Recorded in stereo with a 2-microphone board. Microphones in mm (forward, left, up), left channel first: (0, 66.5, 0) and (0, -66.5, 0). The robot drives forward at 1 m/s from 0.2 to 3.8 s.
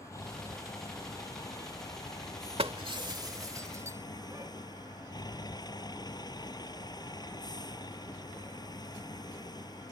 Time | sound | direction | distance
0.0 | a vehicle | 25° left (ahead or behind) | ?
2.6 | breaking glass | 45° right (ahead or behind) | ?